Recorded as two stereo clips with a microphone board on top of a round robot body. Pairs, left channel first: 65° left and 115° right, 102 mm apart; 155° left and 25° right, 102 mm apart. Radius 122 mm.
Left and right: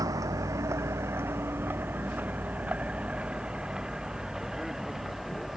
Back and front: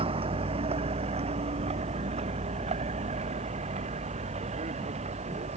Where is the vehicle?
55° right; by 5.6 s 25° right.